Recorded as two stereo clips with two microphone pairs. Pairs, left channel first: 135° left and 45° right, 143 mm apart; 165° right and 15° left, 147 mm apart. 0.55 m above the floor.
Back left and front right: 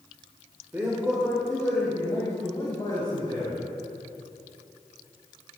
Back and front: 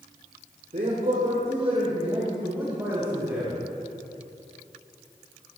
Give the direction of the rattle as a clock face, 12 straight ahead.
No rattle in this recording.